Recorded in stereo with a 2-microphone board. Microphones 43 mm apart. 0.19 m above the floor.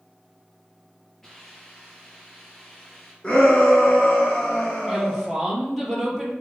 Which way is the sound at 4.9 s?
Centre (ahead or behind).